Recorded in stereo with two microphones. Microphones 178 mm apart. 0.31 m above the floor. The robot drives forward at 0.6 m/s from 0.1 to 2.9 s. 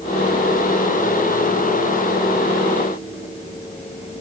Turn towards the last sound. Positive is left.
No sound to turn to.